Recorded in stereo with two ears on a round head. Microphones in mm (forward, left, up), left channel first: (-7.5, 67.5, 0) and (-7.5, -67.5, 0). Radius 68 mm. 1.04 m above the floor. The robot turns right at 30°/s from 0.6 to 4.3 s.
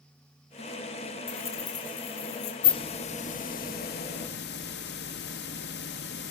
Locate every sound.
1.3 s keys jangling: 10° left, 3.5 m; by 2.5 s 50° left, 3.5 m
2.6 s a hiss: 30° left, 0.8 m; by 6.3 s 80° left, 0.8 m